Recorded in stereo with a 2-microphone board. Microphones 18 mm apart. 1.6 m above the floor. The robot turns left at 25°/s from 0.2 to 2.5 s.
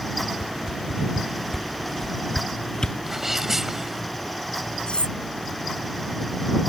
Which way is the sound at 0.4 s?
10° right (ahead or behind).